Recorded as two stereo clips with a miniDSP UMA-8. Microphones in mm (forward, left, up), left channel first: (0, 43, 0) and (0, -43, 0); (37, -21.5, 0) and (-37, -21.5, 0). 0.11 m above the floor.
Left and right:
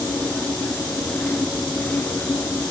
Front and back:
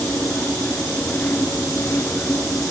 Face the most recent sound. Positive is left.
No sound to turn to.